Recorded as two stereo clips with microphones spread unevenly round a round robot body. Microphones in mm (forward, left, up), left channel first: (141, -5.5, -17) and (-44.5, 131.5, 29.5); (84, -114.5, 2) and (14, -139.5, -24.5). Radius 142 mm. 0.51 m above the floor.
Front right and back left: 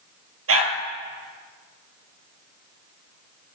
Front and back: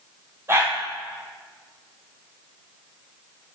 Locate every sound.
0.5 s a dog barking: 115° left, 3 m